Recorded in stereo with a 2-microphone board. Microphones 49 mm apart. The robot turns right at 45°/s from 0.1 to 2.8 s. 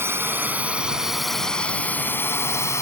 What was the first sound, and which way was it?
A drone, 55° right (ahead or behind).